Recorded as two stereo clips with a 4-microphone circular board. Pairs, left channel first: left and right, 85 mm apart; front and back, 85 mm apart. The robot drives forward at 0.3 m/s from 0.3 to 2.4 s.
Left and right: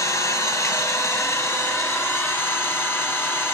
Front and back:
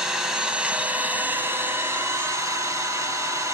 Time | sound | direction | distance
0.0 | an engine running | 105° left | 1.0 m